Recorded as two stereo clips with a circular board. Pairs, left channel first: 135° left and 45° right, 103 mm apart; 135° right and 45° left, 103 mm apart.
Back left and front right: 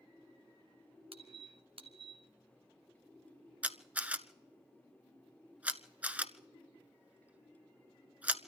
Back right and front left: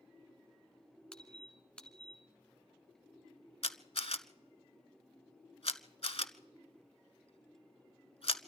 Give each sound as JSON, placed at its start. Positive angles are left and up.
{"t": 1.1, "sound": "a squeak", "azimuth_deg": -55, "distance_m": 1.6}
{"t": 3.6, "sound": "a camera shutter", "azimuth_deg": -120, "distance_m": 0.8}